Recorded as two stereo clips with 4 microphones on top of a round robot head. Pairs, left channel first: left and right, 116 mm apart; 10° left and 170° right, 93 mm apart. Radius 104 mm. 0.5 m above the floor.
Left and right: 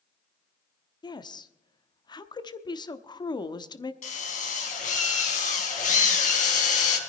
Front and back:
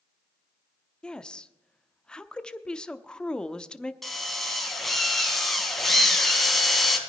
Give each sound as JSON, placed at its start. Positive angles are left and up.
{"t": 1.0, "sound": "a woman speaking", "azimuth_deg": 85, "distance_m": 0.9}
{"t": 4.0, "sound": "a drill", "azimuth_deg": 100, "distance_m": 3.5}